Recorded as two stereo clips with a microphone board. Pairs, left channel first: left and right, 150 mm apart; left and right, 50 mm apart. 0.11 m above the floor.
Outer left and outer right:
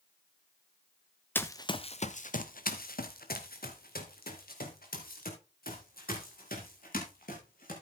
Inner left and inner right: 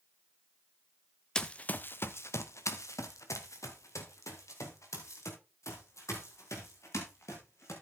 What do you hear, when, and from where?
1.4 s running footsteps: 10° left (ahead or behind), 0.9 m; by 7.7 s 75° left (ahead or behind), 6 m